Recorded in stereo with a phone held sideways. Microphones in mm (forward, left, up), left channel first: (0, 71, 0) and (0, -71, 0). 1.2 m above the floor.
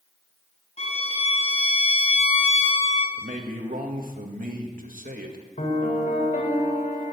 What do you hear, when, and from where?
0.8 s a violin: 50° left (ahead or behind), 3.5 m
3.2 s a man speaking: 75° right (ahead or behind), 1.8 m
5.6 s a piano: 70° left (ahead or behind), 2 m